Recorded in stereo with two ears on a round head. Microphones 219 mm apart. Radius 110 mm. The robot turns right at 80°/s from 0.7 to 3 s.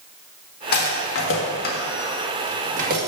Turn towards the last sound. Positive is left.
turn(degrees=-40)  # may be behind; listen again after turning